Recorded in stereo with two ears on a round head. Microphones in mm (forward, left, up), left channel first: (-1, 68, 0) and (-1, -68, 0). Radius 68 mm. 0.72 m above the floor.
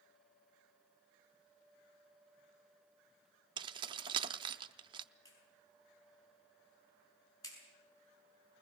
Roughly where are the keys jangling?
Right.